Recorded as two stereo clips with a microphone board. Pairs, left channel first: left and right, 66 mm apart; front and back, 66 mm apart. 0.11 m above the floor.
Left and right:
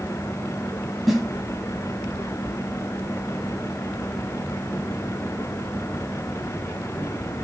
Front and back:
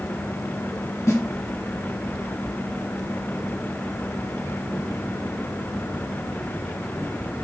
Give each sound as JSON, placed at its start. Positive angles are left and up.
{"t": 1.1, "sound": "a snare drum", "azimuth_deg": 0, "distance_m": 1.9}